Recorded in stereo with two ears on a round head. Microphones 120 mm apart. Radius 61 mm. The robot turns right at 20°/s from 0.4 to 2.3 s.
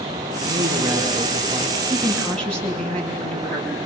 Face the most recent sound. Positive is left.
turn(degrees=5)  # may be behind; listen again after turning